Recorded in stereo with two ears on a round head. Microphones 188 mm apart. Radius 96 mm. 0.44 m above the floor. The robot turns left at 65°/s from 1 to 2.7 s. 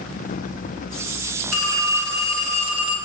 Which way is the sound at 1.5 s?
80° right.